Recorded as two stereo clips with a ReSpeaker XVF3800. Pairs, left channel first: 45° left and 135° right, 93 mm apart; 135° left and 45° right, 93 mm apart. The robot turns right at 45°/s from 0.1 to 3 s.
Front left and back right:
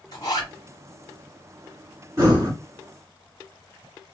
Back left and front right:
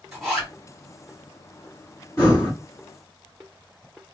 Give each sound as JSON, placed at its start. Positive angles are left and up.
{"t": 0.1, "sound": "a zipper", "azimuth_deg": 35, "distance_m": 2.0}
{"t": 2.2, "sound": "breathing", "azimuth_deg": -170, "distance_m": 2.0}